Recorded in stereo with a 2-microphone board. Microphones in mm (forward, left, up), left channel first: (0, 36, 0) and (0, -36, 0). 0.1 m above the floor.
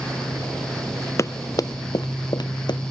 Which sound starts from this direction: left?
Running footsteps, at 1.2 s.